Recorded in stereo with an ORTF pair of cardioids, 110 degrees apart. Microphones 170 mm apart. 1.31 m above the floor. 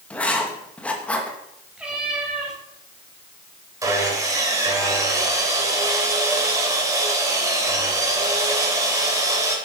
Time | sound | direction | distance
0.1 | writing | 10° left | 2 m
1.8 | a cat meowing | 5° right | 4.5 m
3.8 | sawing | 20° right | 3.5 m